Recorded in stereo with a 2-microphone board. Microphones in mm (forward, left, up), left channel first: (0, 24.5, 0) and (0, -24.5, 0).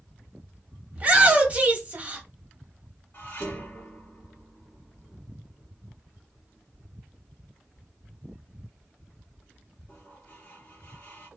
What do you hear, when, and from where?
0.9 s a shout: 30° right (ahead or behind), 0.9 m
3.1 s dishes clattering: 55° left (ahead or behind), 1.3 m